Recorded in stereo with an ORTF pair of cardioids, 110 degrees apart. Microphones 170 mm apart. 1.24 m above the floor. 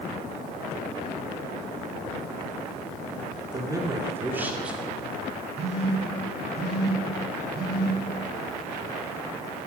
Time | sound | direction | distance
3.5 | a man speaking | 25° right | 2.5 m
5.6 | a phone buzzing | 40° right | 1.9 m